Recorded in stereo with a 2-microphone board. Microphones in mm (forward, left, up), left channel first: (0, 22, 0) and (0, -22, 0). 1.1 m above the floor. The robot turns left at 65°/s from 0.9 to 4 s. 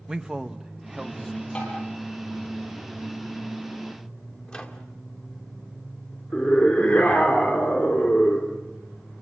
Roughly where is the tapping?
Left.